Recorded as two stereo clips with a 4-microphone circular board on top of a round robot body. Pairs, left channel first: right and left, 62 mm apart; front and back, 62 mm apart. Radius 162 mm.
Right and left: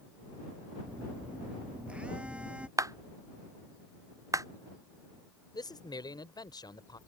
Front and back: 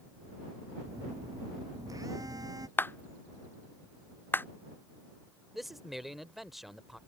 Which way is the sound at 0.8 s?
160° left.